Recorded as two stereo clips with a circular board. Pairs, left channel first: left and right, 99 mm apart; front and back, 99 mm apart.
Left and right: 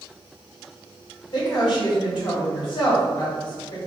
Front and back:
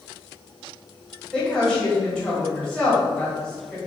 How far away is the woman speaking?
About 1.7 m.